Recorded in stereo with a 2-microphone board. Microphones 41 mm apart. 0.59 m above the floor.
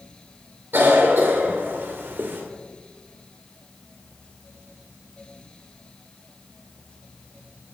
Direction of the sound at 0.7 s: 65° right (ahead or behind).